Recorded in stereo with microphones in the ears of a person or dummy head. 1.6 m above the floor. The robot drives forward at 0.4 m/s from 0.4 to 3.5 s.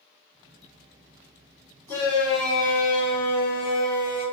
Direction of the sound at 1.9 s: 25° left (ahead or behind).